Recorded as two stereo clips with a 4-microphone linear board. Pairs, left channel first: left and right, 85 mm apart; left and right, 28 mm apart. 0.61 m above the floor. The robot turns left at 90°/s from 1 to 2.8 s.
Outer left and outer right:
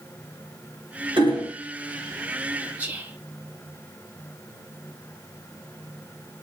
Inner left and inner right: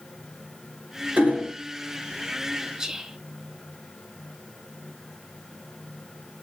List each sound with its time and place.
1.2 s hammering: 90° right, 1.8 m; by 1.5 s 125° right, 1.8 m
2.8 s whispering: 20° right (ahead or behind), 1.4 m; by 3.2 s 15° right (ahead or behind), 1.4 m